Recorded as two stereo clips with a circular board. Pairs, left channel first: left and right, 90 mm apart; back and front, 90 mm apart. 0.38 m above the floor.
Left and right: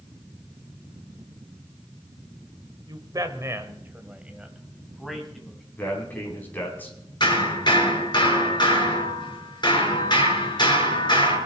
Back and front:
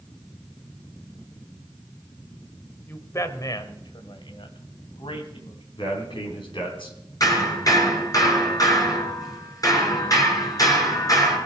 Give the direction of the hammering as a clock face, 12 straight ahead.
8 o'clock.